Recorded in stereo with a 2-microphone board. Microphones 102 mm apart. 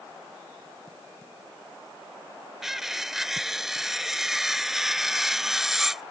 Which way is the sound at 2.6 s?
5° right (ahead or behind).